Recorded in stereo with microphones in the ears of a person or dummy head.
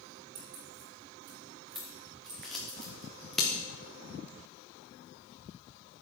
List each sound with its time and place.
0.3 s keys jangling: 50° right (ahead or behind), 2.0 m; by 2.8 s 40° right (ahead or behind), 2.5 m
1.8 s scissors: centre (ahead or behind), 1.2 m